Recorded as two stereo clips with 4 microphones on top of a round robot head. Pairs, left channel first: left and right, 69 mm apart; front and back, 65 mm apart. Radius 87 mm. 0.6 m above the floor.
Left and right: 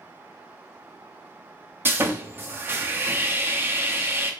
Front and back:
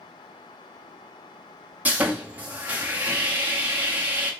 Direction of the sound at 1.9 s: 130° right.